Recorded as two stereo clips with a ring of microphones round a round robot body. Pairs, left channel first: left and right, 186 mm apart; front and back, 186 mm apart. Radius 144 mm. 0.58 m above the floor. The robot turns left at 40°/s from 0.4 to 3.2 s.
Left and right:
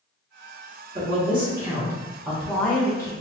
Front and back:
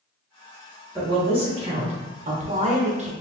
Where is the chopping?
I don't hear chopping.